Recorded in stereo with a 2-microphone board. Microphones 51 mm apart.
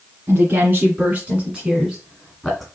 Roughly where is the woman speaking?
Right.